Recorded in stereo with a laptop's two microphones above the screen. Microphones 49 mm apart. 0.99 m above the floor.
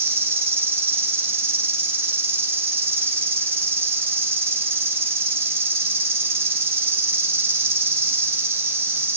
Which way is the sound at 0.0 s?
65° right (ahead or behind).